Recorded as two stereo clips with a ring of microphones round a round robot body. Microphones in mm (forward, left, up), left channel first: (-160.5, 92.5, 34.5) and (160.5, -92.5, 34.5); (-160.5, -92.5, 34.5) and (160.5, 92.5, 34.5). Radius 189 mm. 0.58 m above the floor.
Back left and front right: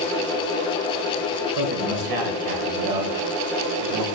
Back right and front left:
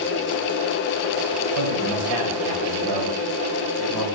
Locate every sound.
1.6 s a man speaking: straight ahead, 3 m